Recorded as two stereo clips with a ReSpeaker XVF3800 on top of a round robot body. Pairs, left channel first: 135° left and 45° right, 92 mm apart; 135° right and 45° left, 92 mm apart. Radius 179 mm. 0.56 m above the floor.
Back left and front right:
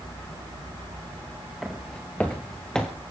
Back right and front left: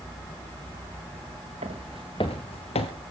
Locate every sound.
1.6 s footsteps: 45° left, 0.7 m; by 2.9 s 140° right, 1.0 m